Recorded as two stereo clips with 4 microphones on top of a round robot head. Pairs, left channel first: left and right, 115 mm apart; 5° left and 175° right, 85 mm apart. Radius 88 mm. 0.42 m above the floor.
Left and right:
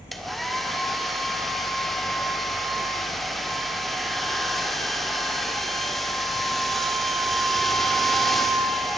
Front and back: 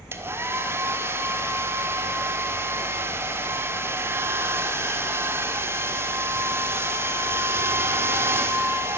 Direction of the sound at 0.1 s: Straight behind.